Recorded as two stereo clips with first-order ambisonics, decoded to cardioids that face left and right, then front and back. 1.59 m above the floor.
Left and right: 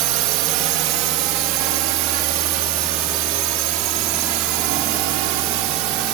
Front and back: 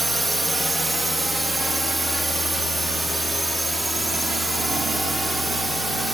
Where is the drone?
100° right; by 6.2 s 95° right.